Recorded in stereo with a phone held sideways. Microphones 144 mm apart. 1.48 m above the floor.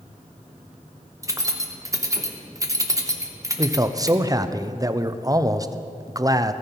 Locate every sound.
1.2 s keys jangling: 20° right (ahead or behind), 1.0 m
3.6 s a man speaking: 25° right (ahead or behind), 0.5 m